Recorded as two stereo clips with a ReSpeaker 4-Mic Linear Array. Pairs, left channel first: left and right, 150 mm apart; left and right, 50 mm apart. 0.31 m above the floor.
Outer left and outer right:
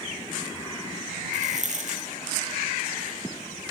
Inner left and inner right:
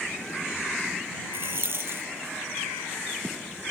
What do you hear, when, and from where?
1.3 s a rattle: 55° right (ahead or behind)